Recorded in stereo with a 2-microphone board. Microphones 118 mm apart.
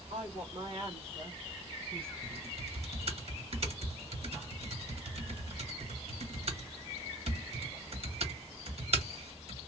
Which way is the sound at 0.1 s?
55° right (ahead or behind).